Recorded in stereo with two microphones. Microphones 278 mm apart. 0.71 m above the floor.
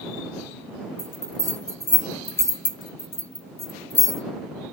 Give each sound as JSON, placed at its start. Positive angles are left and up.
{"t": 1.0, "sound": "a bell", "side_deg": 75}